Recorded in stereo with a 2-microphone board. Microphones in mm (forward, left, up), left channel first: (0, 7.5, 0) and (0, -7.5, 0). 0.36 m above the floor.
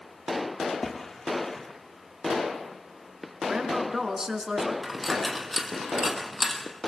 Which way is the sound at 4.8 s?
10° right (ahead or behind).